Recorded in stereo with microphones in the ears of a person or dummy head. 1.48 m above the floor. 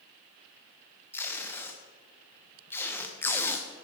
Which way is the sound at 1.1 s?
5° left (ahead or behind).